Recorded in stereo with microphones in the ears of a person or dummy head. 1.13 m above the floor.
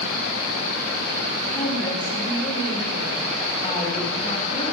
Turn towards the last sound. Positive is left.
turn(degrees=25)  # may be behind; listen again after turning